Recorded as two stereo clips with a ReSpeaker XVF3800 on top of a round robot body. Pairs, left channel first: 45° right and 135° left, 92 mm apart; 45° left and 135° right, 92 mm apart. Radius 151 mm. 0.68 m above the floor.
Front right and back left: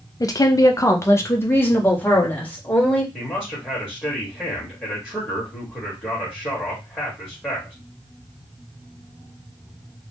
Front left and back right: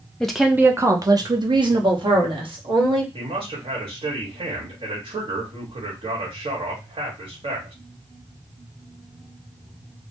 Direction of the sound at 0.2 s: 30° right.